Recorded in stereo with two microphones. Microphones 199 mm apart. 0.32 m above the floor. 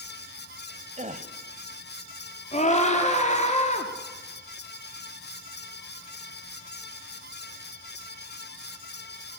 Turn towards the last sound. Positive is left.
turn(degrees=35)  # may be behind; listen again after turning